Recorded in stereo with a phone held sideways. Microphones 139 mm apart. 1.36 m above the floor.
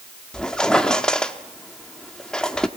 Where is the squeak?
5° left (ahead or behind), 1.0 m.